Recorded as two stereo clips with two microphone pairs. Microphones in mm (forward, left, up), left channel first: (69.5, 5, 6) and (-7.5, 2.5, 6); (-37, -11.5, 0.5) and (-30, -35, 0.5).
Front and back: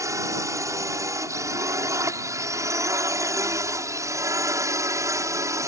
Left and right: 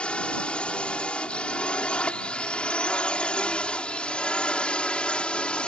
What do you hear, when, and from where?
0.0 s a drone: 145° left